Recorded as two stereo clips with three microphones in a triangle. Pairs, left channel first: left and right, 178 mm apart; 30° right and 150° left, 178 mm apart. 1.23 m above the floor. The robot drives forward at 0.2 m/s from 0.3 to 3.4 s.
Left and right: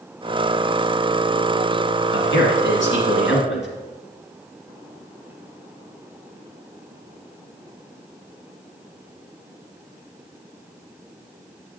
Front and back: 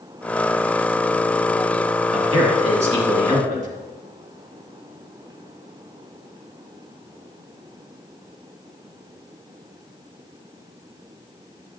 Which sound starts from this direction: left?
A man speaking, at 2.1 s.